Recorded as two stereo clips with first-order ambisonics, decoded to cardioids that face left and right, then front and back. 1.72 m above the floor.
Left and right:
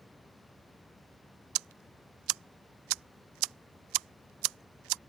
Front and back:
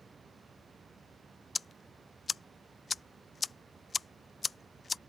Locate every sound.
1.6 s ticking: 75° right